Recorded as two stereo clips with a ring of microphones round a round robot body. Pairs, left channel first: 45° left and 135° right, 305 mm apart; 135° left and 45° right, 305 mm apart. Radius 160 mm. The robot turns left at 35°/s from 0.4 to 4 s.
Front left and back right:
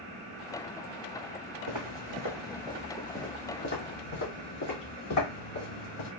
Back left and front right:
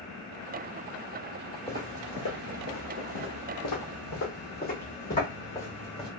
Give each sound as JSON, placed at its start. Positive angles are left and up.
{"t": 1.7, "sound": "footsteps", "azimuth_deg": -140, "distance_m": 1.2}